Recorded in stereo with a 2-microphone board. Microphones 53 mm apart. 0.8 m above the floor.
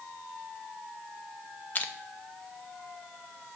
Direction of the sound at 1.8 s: 30° left (ahead or behind).